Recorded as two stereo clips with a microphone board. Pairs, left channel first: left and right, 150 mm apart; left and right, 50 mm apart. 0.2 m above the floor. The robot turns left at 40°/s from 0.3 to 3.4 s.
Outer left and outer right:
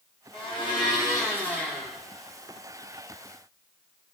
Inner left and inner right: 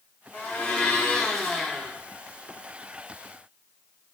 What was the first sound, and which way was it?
A blender, 60° left.